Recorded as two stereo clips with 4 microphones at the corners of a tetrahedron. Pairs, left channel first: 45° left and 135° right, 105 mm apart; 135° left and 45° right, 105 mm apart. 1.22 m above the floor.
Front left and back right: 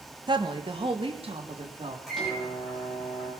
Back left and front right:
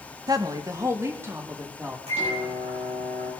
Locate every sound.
0.3 s a woman speaking: 95° right, 1.5 m; by 2.0 s 115° right, 3.5 m
2.1 s a microwave: 40° right, 9 m